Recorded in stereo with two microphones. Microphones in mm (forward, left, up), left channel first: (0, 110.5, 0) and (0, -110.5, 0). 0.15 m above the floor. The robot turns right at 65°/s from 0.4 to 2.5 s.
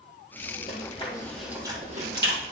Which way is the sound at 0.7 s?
45° left (ahead or behind).